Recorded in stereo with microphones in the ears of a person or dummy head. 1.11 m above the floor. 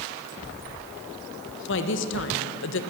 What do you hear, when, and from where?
1.7 s a woman speaking: 60° left (ahead or behind), 1.3 m